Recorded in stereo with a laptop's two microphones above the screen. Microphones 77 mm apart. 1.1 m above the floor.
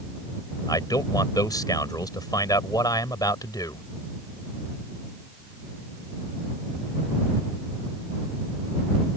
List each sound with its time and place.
0.7 s a man speaking: 65° left (ahead or behind)